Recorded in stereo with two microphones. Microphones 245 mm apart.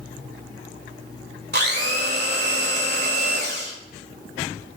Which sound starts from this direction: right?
A blender, at 1.5 s.